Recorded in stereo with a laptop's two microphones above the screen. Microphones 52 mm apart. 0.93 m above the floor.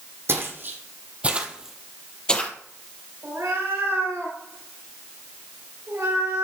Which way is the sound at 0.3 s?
50° right (ahead or behind).